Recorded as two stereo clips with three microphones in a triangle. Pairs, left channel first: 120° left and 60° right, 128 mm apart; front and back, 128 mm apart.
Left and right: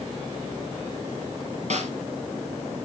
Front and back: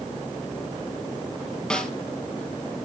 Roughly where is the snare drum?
Right.